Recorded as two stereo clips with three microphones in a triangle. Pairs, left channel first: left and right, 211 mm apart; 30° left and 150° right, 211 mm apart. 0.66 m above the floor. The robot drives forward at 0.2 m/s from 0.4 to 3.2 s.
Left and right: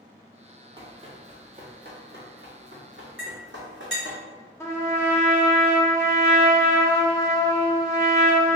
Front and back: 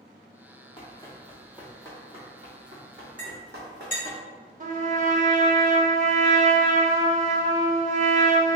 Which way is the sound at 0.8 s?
30° right.